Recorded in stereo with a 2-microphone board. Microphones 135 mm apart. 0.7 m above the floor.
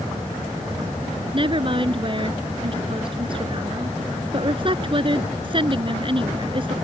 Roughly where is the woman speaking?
Right.